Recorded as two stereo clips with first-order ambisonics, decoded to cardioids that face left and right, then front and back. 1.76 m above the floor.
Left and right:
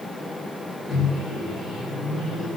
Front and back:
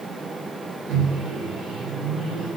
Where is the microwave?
170° left, 3.5 m.